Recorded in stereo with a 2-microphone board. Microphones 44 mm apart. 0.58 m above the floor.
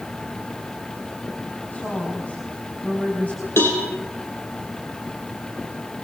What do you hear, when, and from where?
1.7 s a woman speaking: 35° left (ahead or behind), 5 m
3.6 s a cowbell: 60° left (ahead or behind), 6 m